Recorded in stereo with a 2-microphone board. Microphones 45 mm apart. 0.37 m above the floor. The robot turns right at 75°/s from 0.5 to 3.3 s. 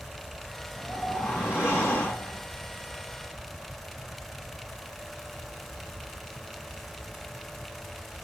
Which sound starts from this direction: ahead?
A whoosh, at 0.8 s.